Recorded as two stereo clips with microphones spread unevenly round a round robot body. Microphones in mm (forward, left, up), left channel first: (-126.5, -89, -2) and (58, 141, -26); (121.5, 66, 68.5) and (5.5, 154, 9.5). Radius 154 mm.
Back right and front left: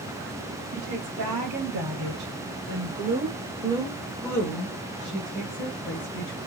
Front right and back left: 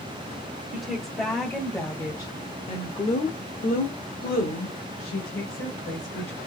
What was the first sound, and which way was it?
A woman speaking, 65° left.